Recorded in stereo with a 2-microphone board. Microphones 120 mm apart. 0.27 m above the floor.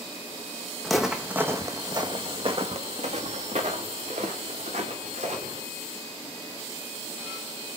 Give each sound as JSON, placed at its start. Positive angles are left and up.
{"t": 0.8, "sound": "footsteps", "side_deg": 5, "distance_m": 1.1}